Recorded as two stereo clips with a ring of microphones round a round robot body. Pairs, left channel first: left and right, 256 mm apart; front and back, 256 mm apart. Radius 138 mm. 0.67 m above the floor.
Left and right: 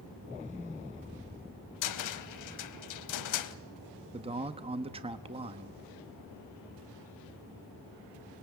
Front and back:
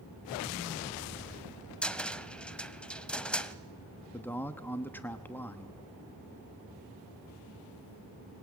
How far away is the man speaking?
About 0.8 m.